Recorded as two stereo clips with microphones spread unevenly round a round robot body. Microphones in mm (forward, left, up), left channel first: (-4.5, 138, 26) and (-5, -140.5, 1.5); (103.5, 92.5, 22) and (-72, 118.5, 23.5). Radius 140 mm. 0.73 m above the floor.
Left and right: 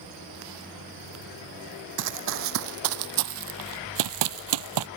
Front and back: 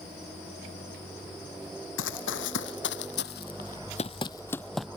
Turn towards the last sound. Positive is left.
turn(degrees=-100)